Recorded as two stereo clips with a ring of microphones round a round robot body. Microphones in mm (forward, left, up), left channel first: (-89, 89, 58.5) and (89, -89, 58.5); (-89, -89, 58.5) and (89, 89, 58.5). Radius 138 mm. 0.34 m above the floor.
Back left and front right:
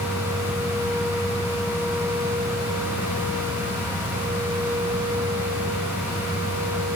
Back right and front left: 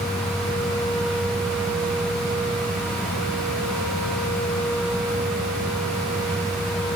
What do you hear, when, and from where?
Only background noise.